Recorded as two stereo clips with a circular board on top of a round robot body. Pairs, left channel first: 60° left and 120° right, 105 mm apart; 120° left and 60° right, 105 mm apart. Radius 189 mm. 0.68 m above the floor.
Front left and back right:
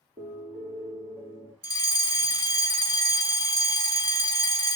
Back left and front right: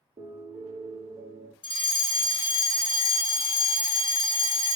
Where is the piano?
90° right, 4.5 m.